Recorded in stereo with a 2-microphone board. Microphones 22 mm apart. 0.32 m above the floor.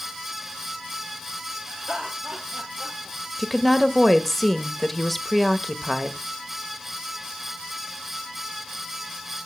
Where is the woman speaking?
Centre (ahead or behind), 0.9 m.